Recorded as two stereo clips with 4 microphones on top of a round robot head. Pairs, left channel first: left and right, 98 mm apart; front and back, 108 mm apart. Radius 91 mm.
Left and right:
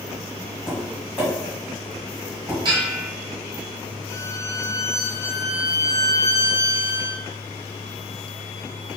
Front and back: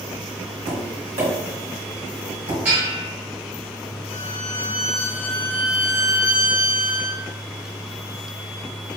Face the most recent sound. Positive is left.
turn(degrees=30)